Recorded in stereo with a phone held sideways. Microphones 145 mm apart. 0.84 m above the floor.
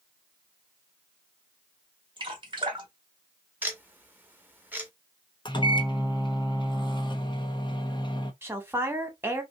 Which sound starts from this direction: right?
Dripping, at 2.2 s.